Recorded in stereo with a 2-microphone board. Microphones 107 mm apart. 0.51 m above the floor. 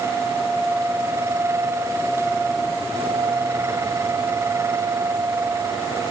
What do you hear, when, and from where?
Only background noise.